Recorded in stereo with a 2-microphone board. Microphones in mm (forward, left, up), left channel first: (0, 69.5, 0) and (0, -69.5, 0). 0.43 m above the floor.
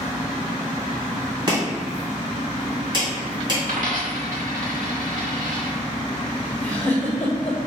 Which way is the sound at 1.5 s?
35° right (ahead or behind).